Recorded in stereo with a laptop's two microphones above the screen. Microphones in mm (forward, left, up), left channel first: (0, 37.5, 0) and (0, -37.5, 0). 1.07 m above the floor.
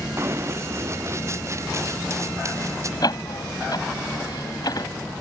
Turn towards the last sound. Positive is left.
turn(degrees=60)  # may be behind; listen again after turning